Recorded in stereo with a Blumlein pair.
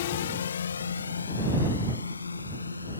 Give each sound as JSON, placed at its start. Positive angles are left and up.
{"t": 0.0, "sound": "a drone", "azimuth_deg": 55}